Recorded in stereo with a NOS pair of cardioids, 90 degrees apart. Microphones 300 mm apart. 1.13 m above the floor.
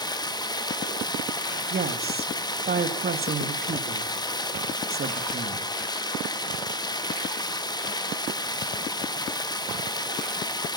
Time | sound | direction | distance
0.0 | running water | 15° left | 1.0 m
1.7 | a woman speaking | 30° right | 1.6 m